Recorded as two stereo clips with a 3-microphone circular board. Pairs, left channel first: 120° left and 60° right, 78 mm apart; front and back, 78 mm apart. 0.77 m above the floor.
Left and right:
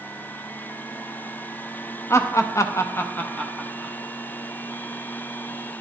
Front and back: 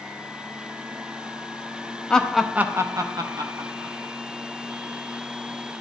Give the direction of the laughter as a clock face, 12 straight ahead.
9 o'clock.